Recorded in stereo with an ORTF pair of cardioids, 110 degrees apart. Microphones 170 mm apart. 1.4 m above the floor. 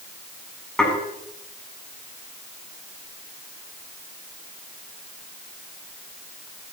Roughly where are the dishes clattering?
Ahead.